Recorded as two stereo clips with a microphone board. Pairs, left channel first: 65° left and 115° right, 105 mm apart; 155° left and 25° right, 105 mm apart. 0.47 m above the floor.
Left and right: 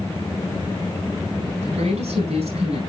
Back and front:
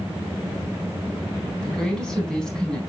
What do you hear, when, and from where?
1.6 s a woman speaking: 120° right, 4 m